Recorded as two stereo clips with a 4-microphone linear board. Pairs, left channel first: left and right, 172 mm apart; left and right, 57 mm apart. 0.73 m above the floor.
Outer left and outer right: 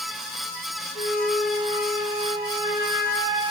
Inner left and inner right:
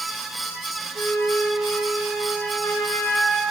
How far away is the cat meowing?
I don't hear a cat meowing.